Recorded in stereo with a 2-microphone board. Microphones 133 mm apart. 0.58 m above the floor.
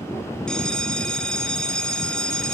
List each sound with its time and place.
0.5 s a bell: 5° left (ahead or behind), 1.9 m